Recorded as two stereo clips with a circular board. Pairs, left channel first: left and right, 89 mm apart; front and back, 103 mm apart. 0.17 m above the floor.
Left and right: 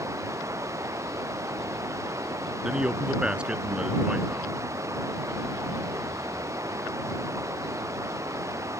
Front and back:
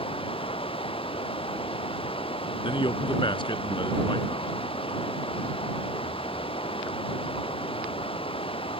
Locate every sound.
0.0 s running water: 35° right
2.6 s a man speaking: 15° right